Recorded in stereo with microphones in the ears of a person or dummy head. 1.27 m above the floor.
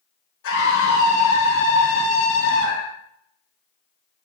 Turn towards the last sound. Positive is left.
turn(degrees=60)  # may be behind; listen again after turning